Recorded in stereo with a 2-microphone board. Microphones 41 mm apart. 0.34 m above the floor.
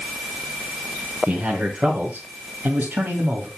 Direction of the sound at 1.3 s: 30° right (ahead or behind).